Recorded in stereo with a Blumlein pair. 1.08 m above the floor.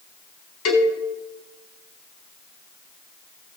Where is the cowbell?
40° left, 4 m.